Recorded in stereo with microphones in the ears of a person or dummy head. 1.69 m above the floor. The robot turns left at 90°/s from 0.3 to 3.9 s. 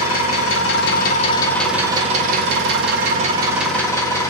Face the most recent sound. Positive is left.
turn(degrees=155)